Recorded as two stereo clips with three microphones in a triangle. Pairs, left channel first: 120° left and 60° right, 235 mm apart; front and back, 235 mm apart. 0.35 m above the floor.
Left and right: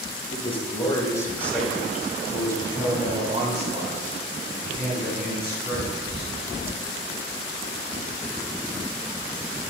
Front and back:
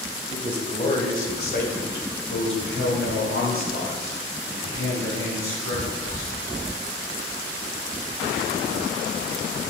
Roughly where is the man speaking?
Ahead left.